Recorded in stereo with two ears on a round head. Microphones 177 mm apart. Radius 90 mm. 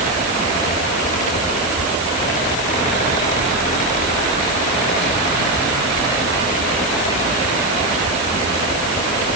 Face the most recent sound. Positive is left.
No sound to turn to.